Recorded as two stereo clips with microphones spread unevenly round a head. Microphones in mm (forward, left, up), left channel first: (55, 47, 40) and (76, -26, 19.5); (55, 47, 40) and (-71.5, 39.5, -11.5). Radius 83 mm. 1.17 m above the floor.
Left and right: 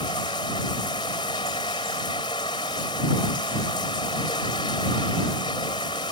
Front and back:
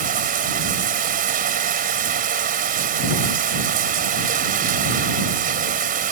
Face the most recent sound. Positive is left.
turn(degrees=165)